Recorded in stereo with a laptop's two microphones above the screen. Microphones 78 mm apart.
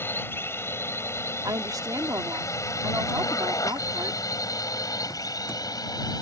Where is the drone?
30° left (ahead or behind); by 6.2 s 55° left (ahead or behind).